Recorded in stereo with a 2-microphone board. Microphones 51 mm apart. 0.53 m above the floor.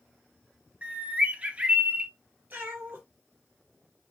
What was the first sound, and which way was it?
A bird, 25° right (ahead or behind).